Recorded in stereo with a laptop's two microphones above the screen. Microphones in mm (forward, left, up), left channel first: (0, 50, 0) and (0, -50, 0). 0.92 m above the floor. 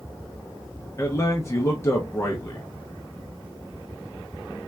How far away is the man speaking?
About 0.5 m.